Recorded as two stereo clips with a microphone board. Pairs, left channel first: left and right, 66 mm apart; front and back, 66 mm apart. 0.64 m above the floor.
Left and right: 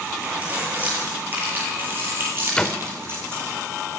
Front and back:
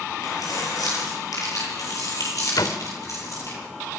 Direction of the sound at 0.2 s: 25° right.